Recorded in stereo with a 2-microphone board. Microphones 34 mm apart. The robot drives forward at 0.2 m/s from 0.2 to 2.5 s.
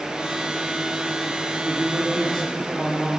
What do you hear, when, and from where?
1.6 s a man speaking: 5° left (ahead or behind), 8 m